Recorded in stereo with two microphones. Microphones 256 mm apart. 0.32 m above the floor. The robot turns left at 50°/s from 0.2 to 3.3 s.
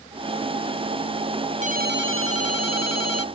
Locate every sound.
1.6 s a ringtone: 25° right; by 3.2 s 110° right